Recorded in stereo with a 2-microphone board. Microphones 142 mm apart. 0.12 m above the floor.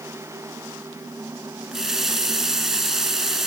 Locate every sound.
1.7 s a running tap: 5° right (ahead or behind), 0.7 m